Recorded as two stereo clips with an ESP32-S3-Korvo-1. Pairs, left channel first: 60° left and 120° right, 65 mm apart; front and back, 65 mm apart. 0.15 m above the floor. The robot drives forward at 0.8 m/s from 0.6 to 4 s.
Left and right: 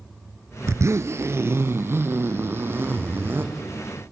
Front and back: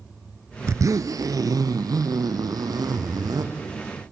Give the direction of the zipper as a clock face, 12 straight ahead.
5 o'clock.